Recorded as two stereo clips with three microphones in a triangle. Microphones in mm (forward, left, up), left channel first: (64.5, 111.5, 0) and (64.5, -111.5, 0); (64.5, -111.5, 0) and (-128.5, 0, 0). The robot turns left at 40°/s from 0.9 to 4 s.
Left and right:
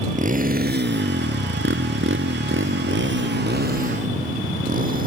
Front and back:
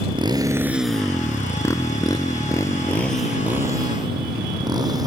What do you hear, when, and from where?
0.0 s a motorcycle: 145° right; by 5.1 s 135° right